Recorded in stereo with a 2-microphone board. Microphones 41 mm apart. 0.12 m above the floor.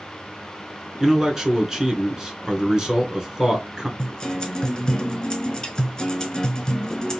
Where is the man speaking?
15° right (ahead or behind), 1.1 m.